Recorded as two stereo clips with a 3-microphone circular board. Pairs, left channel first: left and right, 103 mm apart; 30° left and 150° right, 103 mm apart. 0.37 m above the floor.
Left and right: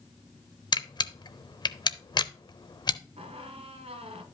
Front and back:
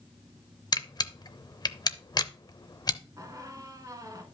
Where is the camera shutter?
65° left, 0.6 m.